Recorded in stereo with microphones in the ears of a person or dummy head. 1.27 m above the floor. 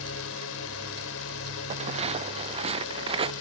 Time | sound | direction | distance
0.0 | a drone | 80° left | ?
1.7 | footsteps | 35° right (ahead or behind) | ?